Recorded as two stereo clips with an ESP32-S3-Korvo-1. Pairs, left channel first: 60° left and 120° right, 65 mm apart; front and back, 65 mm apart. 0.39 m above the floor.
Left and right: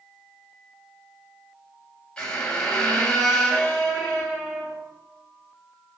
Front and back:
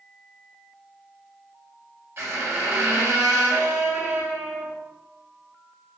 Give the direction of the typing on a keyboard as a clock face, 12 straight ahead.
No typing on a keyboard in this recording.